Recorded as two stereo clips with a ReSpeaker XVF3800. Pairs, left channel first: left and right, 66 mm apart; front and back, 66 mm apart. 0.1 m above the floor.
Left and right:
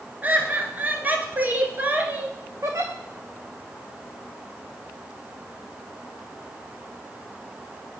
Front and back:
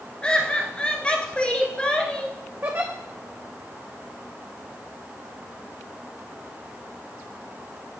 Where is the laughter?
60° right, 1.4 m.